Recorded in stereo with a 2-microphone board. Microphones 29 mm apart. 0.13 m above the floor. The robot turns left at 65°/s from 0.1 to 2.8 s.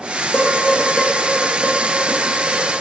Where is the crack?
No crack in this recording.